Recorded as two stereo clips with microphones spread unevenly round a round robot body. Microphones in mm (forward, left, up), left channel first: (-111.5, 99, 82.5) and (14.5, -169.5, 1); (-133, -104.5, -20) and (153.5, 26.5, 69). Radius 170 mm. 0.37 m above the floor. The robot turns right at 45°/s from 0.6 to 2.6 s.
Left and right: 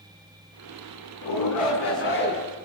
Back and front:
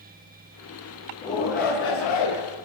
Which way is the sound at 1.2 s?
130° left.